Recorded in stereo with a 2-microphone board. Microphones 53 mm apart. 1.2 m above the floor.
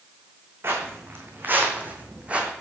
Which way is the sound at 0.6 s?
45° right (ahead or behind).